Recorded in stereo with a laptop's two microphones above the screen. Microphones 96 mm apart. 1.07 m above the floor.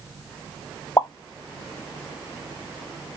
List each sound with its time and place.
1.0 s a pop: 35° left (ahead or behind), 0.6 m